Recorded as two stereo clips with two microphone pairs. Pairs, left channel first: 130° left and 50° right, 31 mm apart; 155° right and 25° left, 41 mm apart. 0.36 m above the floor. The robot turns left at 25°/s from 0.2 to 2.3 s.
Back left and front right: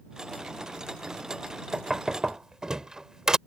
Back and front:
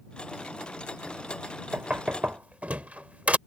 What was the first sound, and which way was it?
Knocking, 15° left.